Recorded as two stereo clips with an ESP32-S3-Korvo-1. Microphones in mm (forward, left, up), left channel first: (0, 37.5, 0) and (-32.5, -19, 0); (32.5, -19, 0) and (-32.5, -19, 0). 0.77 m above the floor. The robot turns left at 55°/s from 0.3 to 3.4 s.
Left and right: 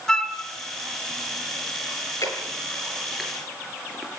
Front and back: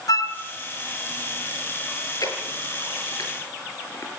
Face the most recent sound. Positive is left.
turn(degrees=-35)